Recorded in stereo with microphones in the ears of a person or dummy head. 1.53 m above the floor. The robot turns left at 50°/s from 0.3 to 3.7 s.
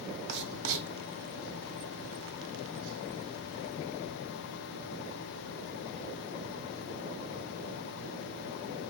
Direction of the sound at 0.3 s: 60° right (ahead or behind).